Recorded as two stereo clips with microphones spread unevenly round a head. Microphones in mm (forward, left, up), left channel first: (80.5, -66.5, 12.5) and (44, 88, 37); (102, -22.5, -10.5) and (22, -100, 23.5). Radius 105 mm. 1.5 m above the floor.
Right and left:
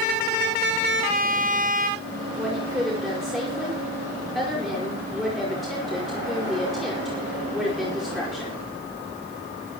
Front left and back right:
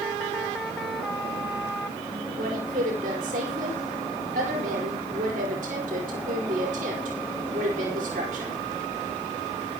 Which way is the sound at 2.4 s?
170° right.